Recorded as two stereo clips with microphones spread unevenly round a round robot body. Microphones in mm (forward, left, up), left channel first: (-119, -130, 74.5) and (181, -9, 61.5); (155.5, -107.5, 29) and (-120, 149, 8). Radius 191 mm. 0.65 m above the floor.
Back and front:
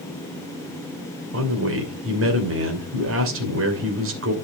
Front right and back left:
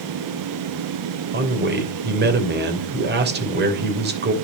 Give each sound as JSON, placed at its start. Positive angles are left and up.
{"t": 1.3, "sound": "a man speaking", "azimuth_deg": 75, "distance_m": 2.5}